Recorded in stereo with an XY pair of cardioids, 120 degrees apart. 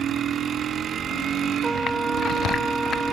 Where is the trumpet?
20° right.